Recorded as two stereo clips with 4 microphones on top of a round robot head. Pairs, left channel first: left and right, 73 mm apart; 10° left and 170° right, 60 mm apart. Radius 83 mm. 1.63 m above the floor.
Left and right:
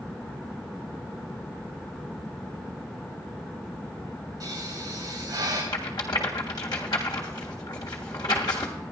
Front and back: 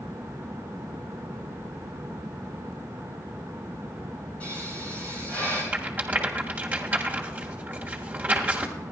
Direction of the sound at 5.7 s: 135° left.